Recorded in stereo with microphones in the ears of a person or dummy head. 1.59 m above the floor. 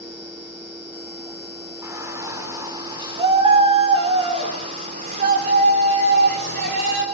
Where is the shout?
10° right (ahead or behind), 6 m; by 7.0 s 60° right (ahead or behind), 6.5 m.